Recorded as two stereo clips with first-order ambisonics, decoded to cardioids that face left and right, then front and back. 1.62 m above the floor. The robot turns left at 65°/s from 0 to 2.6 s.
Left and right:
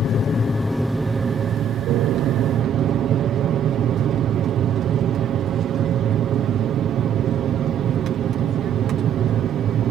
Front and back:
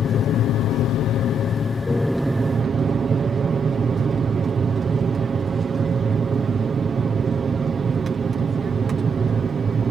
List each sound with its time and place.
0.0 s an aircraft: 50° left; by 9.9 s 120° right